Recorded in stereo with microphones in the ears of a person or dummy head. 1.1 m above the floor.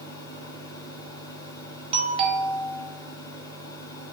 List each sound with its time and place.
0.0 s a fan: 20° left (ahead or behind), 1.5 m
1.9 s a doorbell: 30° right (ahead or behind), 1.3 m